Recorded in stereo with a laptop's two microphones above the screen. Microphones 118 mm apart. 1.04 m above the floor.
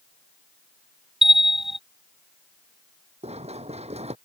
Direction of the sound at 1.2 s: 5° right (ahead or behind).